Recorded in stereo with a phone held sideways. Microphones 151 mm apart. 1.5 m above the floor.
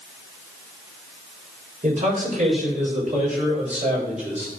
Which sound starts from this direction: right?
A man speaking, at 1.8 s.